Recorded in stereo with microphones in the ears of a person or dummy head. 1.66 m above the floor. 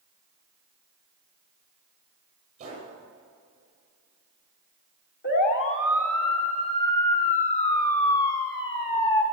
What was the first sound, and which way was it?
A gunshot, 35° right (ahead or behind).